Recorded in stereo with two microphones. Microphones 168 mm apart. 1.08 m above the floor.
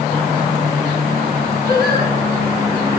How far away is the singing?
About 3 m.